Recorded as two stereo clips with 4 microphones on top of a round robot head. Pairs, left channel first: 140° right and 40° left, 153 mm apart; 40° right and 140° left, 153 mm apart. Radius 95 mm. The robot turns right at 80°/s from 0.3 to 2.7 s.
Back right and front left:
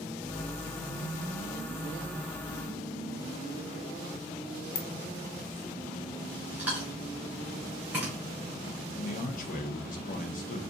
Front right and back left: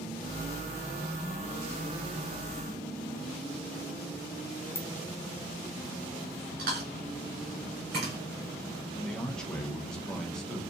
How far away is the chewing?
About 1.5 m.